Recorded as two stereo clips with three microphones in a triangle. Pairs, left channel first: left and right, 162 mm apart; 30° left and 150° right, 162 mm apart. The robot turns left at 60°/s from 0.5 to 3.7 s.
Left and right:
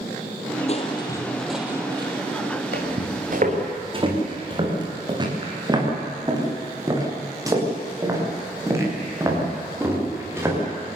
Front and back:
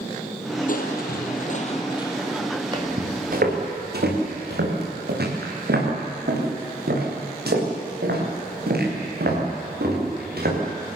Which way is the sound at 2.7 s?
85° right.